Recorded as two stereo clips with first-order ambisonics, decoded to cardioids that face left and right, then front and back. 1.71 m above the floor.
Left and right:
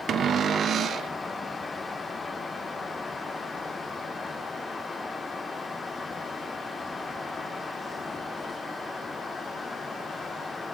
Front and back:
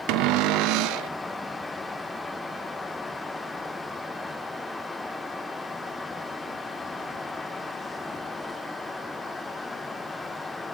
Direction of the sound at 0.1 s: 150° right.